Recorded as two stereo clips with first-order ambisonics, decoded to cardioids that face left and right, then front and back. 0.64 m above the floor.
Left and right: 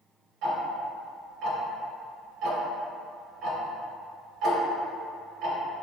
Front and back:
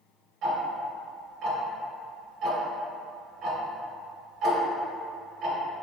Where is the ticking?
130° right, 0.6 m.